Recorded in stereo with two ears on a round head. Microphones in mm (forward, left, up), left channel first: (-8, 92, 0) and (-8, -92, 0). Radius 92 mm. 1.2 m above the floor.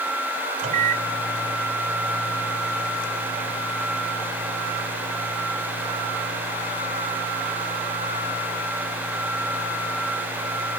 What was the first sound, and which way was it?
A microwave, 40° right (ahead or behind).